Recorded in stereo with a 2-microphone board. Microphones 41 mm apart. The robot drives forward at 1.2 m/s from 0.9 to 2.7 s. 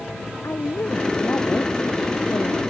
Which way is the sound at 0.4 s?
60° left (ahead or behind).